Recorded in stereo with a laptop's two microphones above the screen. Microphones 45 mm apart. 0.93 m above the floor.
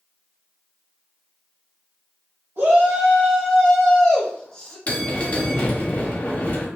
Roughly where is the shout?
Right.